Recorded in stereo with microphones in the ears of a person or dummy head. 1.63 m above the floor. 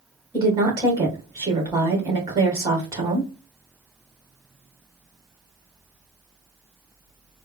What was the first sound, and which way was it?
A woman speaking, 10° right (ahead or behind).